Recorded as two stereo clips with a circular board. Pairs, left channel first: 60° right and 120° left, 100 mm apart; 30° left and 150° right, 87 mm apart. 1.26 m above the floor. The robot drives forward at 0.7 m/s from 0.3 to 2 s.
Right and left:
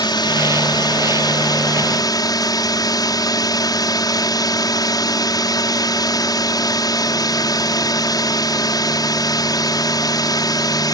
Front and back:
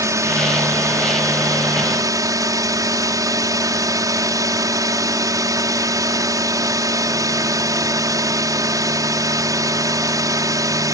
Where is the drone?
100° right; by 10.9 s 105° right.